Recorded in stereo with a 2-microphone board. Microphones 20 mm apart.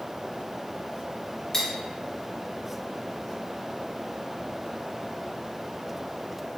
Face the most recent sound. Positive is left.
turn(degrees=30)  # may be behind; listen again after turning